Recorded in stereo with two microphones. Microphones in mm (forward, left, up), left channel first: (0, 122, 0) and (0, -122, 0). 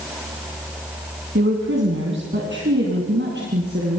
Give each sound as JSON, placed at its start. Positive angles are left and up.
{"t": 1.4, "sound": "a woman speaking", "side_deg": -55, "distance_m": 2.5}